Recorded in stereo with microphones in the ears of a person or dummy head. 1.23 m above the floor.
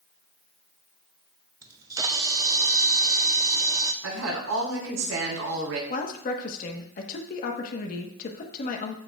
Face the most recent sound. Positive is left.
turn(degrees=45)  # may be behind; listen again after turning